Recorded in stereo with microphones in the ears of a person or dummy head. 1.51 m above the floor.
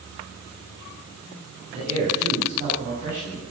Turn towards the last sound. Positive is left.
turn(degrees=-40)  # may be behind; listen again after turning